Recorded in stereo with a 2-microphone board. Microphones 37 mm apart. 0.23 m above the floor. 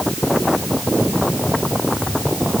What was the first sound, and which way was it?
Only background noise.